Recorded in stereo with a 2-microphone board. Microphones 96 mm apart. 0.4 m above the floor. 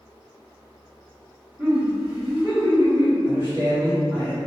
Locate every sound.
1.6 s laughter: 25° right (ahead or behind), 1.1 m; by 3.1 s 55° right (ahead or behind), 1.6 m
3.2 s a man speaking: 50° right (ahead or behind), 1.4 m